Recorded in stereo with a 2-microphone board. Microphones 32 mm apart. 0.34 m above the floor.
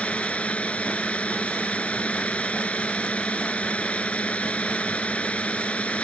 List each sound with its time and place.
0.0 s a drone: 40° left (ahead or behind)